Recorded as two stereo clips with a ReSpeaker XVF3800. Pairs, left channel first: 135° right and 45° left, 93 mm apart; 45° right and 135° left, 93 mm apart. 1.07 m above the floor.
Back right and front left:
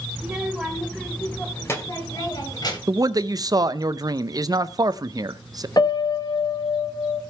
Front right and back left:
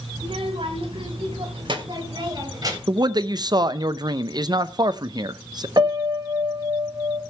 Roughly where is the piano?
Behind.